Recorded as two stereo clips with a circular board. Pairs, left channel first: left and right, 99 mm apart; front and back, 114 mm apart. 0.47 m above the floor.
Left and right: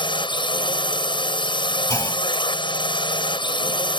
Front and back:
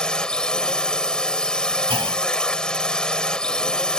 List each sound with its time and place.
0.0 s a drone: 80° left
1.9 s a clunk: 145° left